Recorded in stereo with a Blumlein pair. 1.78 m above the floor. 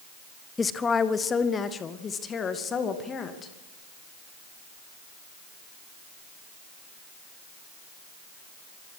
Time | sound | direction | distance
0.6 | a woman speaking | 15° left | 1.0 m